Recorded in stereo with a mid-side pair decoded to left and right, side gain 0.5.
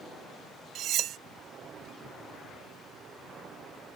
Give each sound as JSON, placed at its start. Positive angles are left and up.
{"t": 0.8, "sound": "cutlery clinking", "azimuth_deg": -65}